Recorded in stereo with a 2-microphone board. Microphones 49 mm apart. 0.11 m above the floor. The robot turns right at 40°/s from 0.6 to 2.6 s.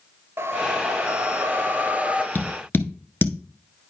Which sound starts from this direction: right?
A whoosh, at 0.4 s.